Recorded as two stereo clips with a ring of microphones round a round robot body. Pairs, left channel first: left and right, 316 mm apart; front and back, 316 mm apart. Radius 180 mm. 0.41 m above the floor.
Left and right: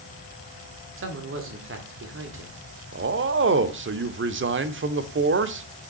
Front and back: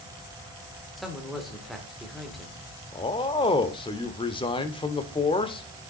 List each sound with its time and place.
1.0 s a man speaking: 90° right, 1.6 m
2.9 s a man speaking: 65° right, 0.9 m